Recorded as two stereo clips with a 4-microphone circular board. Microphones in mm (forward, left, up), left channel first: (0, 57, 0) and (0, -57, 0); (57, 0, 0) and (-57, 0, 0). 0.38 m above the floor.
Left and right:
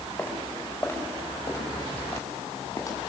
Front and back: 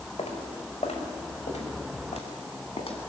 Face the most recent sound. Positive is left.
turn(degrees=25)